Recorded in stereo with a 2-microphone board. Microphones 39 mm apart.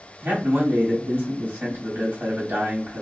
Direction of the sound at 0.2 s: 65° right (ahead or behind).